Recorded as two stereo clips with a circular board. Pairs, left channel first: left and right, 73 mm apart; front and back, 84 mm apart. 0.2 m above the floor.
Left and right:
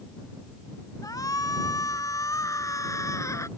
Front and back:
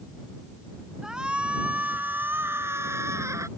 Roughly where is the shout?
Left.